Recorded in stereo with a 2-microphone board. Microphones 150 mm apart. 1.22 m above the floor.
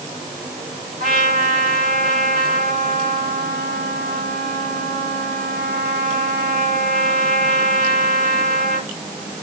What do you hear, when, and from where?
1.0 s a trumpet: 60° right (ahead or behind), 9.5 m